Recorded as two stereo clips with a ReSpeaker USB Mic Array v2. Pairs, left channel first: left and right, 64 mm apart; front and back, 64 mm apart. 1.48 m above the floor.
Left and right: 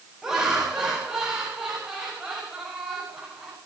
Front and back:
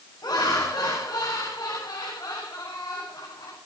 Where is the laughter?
5° right, 8.5 m.